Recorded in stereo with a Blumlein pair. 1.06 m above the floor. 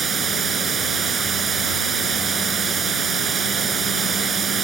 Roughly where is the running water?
Ahead.